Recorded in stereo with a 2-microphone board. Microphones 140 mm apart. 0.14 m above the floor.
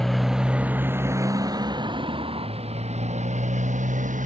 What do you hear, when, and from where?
0.0 s a motorcycle: 5° left (ahead or behind); by 4.3 s 65° right (ahead or behind)